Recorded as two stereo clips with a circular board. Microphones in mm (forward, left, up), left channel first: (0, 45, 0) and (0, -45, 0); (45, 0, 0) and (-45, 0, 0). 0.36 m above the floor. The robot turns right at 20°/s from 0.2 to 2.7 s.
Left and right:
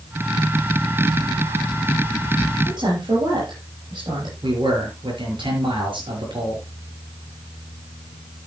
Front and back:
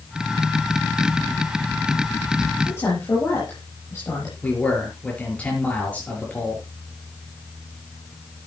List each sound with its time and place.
2.6 s a woman speaking: 60° right, 7 m
4.4 s a man speaking: 75° right, 6 m